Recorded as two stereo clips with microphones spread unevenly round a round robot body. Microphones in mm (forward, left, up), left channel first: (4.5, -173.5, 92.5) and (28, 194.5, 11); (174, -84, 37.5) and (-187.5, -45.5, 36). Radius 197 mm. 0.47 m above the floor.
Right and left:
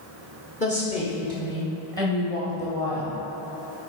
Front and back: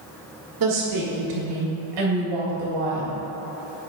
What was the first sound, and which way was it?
A woman speaking, 170° right.